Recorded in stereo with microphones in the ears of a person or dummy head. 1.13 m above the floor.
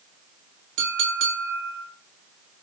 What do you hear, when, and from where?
0.8 s a clink: 70° right (ahead or behind), 1.6 m